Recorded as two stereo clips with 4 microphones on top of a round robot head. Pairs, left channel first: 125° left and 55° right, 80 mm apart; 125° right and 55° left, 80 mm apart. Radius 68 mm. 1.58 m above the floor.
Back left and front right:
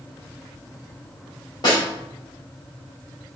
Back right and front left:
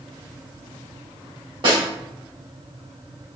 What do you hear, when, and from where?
1.6 s a snare drum: 85° left, 3.5 m